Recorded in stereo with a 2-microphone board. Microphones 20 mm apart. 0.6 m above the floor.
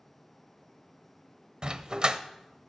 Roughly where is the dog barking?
Right.